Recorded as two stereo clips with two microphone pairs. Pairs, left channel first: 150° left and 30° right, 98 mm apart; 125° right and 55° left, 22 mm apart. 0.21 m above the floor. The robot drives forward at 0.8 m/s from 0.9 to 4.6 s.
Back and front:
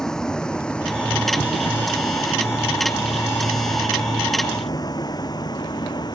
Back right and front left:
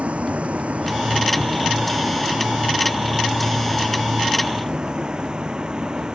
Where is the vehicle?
65° left; by 6.2 s 105° left.